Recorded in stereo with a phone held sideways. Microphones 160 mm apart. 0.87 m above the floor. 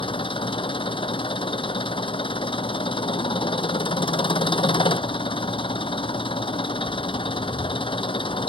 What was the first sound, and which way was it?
An engine running, 30° left (ahead or behind).